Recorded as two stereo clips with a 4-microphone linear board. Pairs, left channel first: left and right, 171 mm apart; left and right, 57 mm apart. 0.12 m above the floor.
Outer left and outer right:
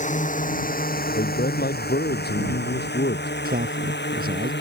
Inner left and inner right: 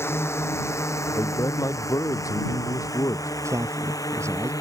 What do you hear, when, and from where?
0.0 s a drone: 45° left (ahead or behind); by 4.6 s 80° left
1.1 s a man speaking: 70° left (ahead or behind)
3.5 s a man speaking: 60° right (ahead or behind)